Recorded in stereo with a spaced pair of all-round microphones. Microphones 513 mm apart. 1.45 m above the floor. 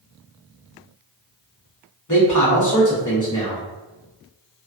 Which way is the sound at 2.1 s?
35° left (ahead or behind).